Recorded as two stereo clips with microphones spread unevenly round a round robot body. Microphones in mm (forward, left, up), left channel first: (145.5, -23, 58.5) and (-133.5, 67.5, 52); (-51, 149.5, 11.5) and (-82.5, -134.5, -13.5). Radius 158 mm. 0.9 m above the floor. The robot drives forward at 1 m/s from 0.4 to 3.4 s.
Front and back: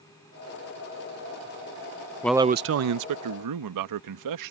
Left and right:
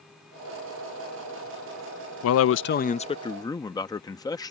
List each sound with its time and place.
2.2 s a man speaking: 60° left; by 4.5 s 165° left